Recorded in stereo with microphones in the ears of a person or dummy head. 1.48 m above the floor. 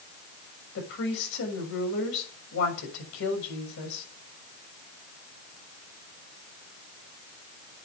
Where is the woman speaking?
75° left (ahead or behind), 6.5 m.